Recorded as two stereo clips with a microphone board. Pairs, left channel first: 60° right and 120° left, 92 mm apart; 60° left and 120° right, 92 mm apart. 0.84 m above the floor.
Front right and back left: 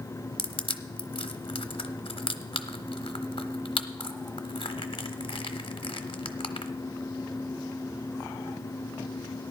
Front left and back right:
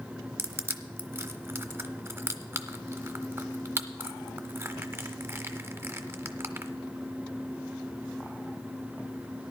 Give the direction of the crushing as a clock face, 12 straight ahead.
2 o'clock.